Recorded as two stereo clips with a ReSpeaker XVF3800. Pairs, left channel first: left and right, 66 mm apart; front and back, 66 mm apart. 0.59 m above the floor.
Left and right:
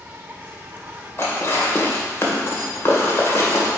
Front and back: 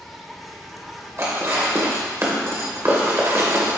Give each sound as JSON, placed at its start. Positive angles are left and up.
{"t": 0.0, "sound": "an insect", "azimuth_deg": -90, "distance_m": 0.8}
{"t": 1.2, "sound": "dishes clattering", "azimuth_deg": 140, "distance_m": 1.5}